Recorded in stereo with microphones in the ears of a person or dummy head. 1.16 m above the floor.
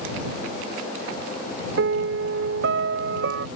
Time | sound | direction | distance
1.8 | a piano | 65° right (ahead or behind) | ?